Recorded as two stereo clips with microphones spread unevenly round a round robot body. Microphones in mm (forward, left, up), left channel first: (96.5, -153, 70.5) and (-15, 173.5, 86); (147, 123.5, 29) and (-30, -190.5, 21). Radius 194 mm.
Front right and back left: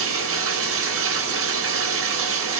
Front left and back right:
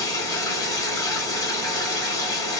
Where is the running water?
140° left, 1.1 m.